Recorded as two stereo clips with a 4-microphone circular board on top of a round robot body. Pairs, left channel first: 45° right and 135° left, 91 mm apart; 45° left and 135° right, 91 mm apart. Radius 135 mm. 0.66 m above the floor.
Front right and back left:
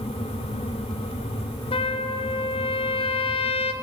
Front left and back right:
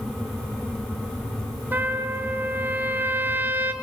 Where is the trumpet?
65° right, 1.2 m.